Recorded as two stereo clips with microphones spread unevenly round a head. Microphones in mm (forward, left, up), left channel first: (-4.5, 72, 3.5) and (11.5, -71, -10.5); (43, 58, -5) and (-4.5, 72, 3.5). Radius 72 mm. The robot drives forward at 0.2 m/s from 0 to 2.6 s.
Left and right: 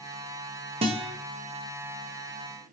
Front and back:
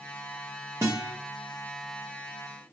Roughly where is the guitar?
Behind right.